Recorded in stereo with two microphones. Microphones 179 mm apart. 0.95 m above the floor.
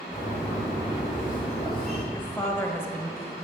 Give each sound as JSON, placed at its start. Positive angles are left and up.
{"t": 0.1, "sound": "a bird", "side_deg": 0, "distance_m": 4.0}
{"t": 2.1, "sound": "a woman speaking", "side_deg": 10, "distance_m": 1.3}